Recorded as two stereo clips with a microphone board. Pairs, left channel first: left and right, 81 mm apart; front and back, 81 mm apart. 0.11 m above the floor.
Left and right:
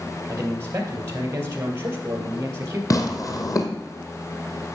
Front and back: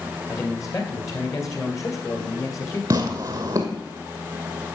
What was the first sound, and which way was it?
A man speaking, 40° right.